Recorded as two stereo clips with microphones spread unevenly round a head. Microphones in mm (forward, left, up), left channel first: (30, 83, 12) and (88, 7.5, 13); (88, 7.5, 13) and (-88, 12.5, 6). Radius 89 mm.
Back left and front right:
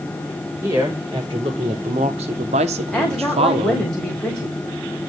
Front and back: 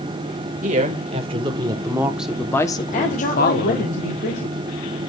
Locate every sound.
0.6 s a woman speaking: 130° right, 2.5 m; by 3.9 s 25° right, 1.6 m
2.9 s a woman speaking: 45° left, 3 m